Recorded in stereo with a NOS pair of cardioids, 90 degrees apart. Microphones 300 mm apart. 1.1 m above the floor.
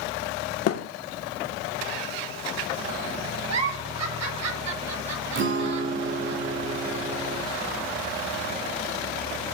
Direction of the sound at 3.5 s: 60° right.